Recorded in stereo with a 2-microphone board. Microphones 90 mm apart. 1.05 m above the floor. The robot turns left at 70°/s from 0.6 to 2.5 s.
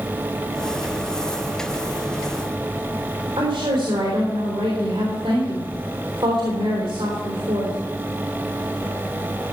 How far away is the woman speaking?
About 3.5 m.